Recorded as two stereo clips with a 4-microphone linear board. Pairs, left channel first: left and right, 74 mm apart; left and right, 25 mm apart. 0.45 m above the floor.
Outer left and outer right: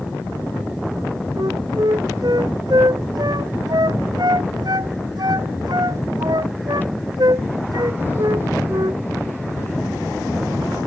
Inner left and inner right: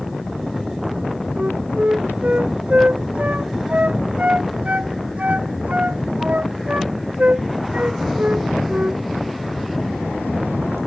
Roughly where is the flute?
Right.